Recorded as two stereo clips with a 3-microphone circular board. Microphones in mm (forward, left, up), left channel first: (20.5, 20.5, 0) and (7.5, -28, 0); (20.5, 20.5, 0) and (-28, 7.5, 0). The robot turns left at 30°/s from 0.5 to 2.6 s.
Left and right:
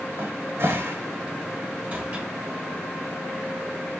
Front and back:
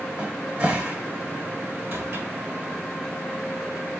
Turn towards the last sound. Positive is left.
turn(degrees=180)